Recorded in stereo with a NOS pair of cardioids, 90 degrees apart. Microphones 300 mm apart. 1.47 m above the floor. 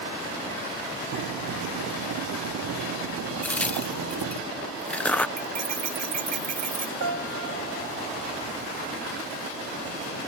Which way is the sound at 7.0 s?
55° right.